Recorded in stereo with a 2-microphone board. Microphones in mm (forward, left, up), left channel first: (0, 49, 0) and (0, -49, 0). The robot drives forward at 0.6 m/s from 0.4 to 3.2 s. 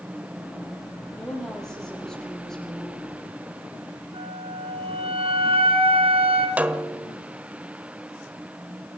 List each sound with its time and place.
1.1 s a woman speaking: 5° left (ahead or behind), 9 m
4.1 s a flute: 75° right (ahead or behind), 2.5 m
6.6 s a snare drum: 15° right (ahead or behind), 1.3 m